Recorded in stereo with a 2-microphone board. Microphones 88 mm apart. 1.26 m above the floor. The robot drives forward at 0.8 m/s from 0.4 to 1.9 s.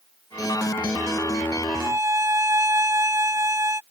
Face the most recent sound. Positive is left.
turn(degrees=-35)  # may be behind; listen again after turning